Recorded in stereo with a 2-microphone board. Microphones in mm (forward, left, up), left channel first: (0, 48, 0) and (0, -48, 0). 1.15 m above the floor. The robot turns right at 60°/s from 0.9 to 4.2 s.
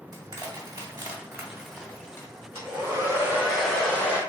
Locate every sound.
0.1 s crushing: 45° right (ahead or behind), 1.5 m; by 2.3 s 30° left (ahead or behind), 1.5 m
2.5 s a hair dryer: 65° right, 1.6 m; by 4.2 s 35° left, 1.6 m